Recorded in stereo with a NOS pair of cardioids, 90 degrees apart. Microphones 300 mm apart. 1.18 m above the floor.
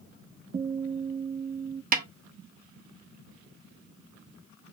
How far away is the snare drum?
About 1.0 m.